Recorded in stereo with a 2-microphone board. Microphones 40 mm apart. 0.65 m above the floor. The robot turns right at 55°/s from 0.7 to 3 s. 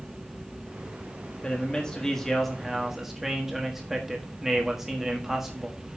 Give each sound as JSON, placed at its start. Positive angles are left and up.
{"t": 1.4, "sound": "a man speaking", "side_deg": 25, "distance_m": 1.3}